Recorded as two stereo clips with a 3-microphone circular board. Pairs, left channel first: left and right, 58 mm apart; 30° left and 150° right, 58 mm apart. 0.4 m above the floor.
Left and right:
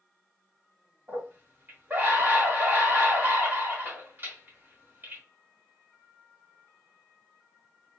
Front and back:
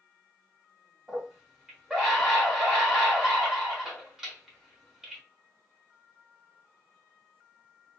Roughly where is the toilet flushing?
I don't hear a toilet flushing.